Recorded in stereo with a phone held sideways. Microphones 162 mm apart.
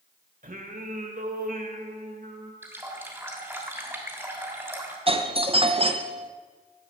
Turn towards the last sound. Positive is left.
turn(degrees=-35)  # may be behind; listen again after turning